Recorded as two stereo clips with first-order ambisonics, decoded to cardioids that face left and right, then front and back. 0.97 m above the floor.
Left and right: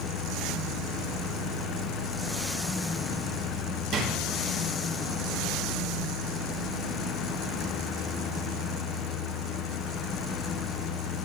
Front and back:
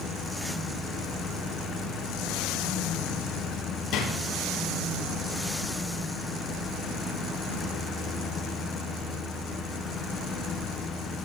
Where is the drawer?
40° right, 9.5 m.